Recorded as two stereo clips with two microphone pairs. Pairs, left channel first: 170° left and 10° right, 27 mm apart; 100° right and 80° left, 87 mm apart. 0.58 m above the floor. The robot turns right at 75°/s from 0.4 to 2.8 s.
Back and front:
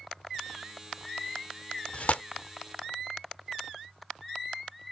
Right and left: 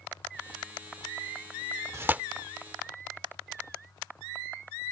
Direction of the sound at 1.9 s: 135° left.